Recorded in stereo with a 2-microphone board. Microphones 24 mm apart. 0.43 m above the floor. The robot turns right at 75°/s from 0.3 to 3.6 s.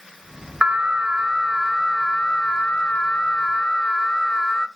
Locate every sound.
0.6 s an alarm: 75° right, 1.1 m; by 4.7 s 150° left, 1.1 m